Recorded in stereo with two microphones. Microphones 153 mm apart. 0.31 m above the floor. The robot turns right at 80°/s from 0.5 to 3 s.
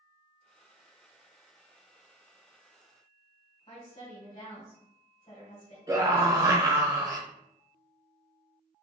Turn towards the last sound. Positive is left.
turn(degrees=-25)  # may be behind; listen again after turning